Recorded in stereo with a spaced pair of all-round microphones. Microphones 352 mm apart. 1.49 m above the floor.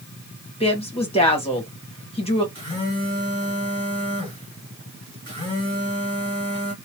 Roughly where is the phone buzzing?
Centre.